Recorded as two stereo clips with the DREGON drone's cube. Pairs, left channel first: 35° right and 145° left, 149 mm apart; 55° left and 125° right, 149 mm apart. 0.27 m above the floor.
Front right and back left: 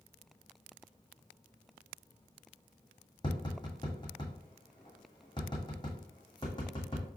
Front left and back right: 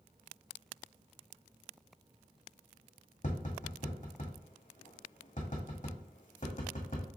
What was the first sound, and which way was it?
Tapping, 25° left.